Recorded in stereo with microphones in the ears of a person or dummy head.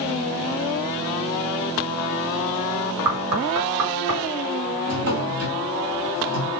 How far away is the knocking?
About 4.5 m.